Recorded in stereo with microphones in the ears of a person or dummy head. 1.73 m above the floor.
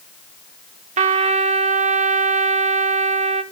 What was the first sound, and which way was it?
A trumpet, 35° right (ahead or behind).